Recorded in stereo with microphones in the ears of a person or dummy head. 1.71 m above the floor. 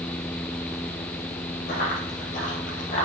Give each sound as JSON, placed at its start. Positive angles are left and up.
{"t": 1.7, "sound": "running footsteps", "side_deg": 50, "distance_m": 3.0}